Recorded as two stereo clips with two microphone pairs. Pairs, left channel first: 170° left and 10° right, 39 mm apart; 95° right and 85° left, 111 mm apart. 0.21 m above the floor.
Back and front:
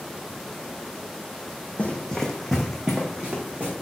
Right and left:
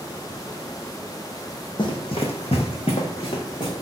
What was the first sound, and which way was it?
Running footsteps, 130° right.